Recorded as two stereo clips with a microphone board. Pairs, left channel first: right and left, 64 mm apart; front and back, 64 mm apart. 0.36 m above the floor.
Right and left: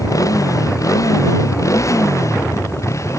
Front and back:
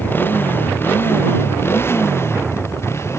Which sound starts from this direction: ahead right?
A motorcycle, at 0.0 s.